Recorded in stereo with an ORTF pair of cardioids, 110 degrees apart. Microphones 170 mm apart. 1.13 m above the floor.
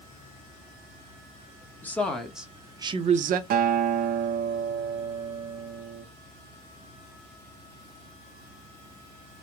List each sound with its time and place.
1.8 s a woman speaking: 10° left, 1.1 m; by 3.4 s 60° right, 0.6 m
3.5 s a guitar: 60° right, 0.6 m